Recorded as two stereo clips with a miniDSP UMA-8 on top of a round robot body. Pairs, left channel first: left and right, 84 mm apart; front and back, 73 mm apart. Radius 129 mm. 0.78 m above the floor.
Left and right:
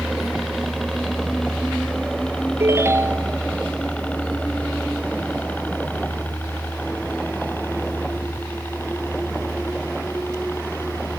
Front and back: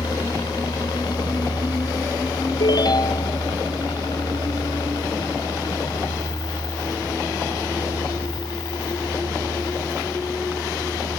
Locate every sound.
0.0 s a helicopter: straight ahead; by 11.2 s 30° left
2.6 s a ringtone: 30° right